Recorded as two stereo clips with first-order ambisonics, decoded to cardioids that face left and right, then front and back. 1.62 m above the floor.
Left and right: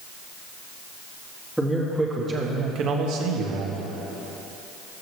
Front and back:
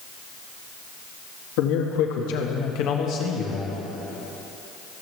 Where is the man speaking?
Straight ahead, 2 m; by 3.8 s 70° right, 2 m.